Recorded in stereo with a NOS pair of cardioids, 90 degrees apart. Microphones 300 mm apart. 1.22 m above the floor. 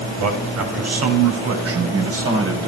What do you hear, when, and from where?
0.2 s a man speaking: 65° right, 6.5 m; by 2.7 s 45° right, 7.5 m